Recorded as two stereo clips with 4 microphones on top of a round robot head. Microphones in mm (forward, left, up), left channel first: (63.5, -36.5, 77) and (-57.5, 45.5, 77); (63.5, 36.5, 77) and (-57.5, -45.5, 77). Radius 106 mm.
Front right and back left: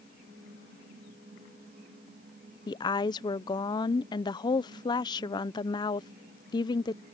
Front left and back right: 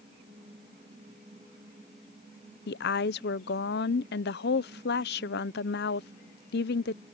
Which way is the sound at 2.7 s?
30° left.